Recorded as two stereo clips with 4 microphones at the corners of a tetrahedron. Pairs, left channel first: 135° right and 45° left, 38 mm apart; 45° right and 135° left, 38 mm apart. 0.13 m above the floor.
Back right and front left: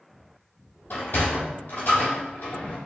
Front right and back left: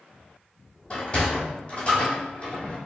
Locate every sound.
0.9 s a sliding door: 100° right, 1.1 m